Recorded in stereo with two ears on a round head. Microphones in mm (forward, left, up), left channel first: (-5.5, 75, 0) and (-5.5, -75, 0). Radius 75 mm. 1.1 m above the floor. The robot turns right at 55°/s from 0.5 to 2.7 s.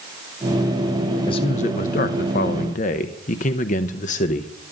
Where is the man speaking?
35° left, 0.7 m; by 4.5 s 115° left, 0.7 m.